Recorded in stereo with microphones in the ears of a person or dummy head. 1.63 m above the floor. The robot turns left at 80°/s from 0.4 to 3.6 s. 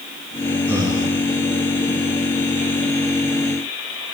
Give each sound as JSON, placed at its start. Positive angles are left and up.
{"t": 0.7, "sound": "breathing", "azimuth_deg": -10, "distance_m": 1.6}